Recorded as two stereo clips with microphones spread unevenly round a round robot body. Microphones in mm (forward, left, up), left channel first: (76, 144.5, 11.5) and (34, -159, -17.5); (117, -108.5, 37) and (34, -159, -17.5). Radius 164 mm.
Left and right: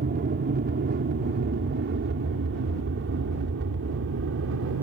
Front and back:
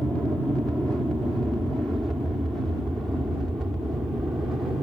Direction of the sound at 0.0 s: 100° right.